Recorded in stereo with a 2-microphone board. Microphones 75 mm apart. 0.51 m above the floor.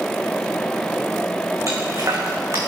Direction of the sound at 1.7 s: 45° right (ahead or behind).